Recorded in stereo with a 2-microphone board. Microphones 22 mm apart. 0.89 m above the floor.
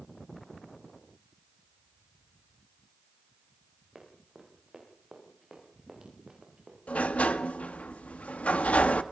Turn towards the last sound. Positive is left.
turn(degrees=70)  # may be behind; listen again after turning